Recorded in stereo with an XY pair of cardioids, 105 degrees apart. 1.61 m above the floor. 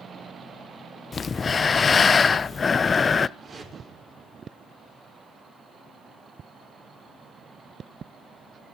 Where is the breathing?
30° left, 0.6 m.